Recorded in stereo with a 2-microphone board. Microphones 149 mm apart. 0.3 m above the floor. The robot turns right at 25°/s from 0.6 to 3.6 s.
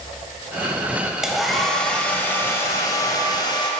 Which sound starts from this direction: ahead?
A hair dryer, at 1.2 s.